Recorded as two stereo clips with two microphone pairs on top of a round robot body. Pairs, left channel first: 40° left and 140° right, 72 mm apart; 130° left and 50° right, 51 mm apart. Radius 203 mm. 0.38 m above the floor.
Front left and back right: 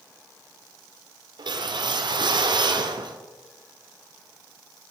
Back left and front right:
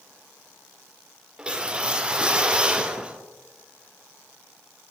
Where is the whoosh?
125° right, 0.6 m.